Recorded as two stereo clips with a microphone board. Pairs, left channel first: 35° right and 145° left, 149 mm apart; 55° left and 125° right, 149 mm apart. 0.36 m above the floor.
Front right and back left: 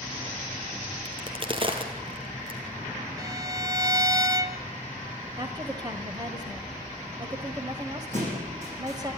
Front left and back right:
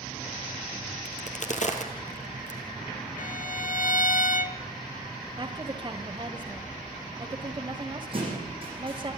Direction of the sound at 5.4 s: 165° right.